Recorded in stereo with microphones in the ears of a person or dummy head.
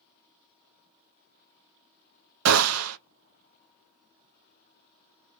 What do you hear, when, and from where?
2.5 s a gunshot: 85° right, 0.6 m